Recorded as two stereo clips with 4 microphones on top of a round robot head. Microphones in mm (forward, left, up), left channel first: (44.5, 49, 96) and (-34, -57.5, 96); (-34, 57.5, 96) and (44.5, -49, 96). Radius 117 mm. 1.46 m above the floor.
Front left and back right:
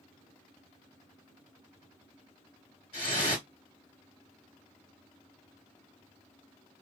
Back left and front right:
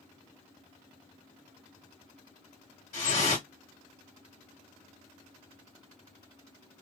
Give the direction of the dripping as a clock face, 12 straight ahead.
9 o'clock.